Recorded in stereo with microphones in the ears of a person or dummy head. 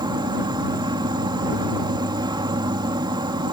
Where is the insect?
20° right (ahead or behind).